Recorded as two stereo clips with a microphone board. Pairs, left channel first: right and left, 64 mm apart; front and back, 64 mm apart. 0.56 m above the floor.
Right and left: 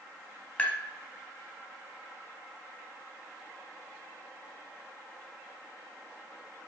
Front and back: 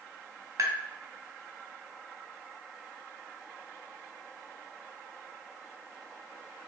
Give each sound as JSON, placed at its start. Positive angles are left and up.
{"t": 0.6, "sound": "tapping", "azimuth_deg": -155, "distance_m": 1.5}